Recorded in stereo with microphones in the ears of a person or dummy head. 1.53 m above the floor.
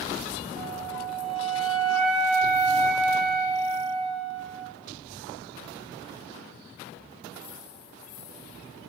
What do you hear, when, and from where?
0.6 s a flute: 40° right (ahead or behind), 0.5 m